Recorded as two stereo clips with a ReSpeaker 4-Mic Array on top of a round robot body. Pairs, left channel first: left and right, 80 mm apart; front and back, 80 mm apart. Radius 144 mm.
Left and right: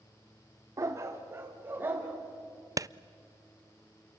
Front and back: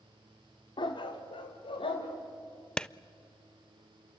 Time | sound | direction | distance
0.8 | a dog barking | 35° right | 1.3 m
2.8 | a clap | 75° right | 0.6 m